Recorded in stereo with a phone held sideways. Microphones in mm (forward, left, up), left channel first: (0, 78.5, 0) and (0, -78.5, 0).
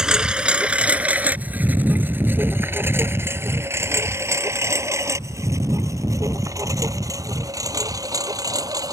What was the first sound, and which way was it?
A lawn mower, 5° right (ahead or behind).